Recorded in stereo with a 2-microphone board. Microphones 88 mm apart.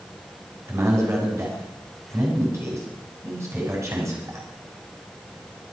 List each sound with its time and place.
0.7 s a man speaking: 35° right (ahead or behind), 6.5 m